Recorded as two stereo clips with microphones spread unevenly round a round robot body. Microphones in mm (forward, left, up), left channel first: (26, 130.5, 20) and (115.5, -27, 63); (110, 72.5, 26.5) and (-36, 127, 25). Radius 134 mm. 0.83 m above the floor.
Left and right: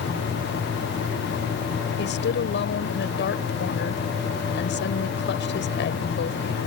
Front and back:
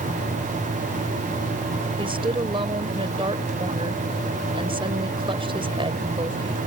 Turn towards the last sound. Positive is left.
turn(degrees=105)